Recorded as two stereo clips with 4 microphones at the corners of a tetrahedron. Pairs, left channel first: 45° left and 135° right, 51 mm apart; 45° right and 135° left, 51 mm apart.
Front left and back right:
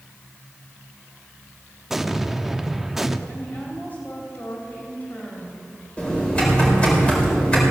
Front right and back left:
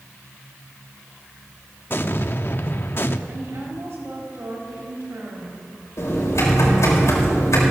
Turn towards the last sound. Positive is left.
turn(degrees=-25)